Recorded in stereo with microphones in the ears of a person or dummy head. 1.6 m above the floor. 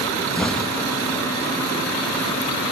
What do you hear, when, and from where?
0.3 s an explosion: 5° left (ahead or behind), 1.8 m